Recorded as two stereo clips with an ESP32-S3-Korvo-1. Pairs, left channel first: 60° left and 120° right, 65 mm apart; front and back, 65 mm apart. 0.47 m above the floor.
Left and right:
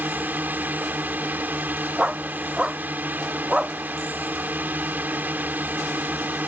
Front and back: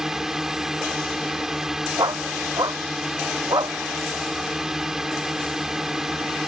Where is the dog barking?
165° left.